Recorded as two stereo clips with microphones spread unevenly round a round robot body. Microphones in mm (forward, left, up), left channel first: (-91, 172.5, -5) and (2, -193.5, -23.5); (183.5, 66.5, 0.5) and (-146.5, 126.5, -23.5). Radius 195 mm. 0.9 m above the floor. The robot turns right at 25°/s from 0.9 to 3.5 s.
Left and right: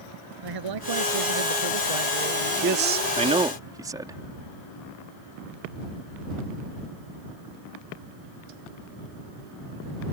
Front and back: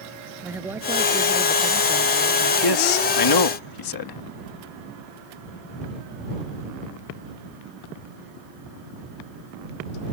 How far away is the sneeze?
No sneeze in this recording.